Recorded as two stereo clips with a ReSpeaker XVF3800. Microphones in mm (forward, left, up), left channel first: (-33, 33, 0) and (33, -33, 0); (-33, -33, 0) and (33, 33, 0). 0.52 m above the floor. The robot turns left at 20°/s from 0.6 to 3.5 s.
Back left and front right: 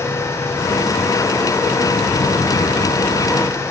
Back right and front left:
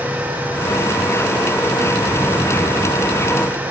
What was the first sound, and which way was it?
Only background noise.